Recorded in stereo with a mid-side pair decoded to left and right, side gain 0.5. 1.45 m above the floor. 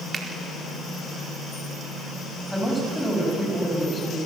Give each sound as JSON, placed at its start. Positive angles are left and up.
{"t": 0.1, "sound": "a finger snap", "azimuth_deg": -35, "distance_m": 4.5}
{"t": 2.5, "sound": "a woman speaking", "azimuth_deg": 10, "distance_m": 9.5}